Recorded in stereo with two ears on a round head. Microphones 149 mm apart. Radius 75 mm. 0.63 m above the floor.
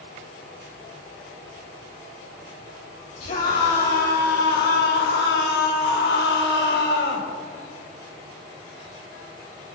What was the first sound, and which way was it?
A scream, 50° left (ahead or behind).